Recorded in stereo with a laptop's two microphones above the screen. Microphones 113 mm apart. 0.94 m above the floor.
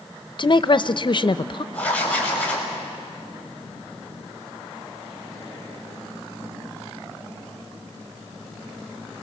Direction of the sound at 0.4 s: 45° left (ahead or behind).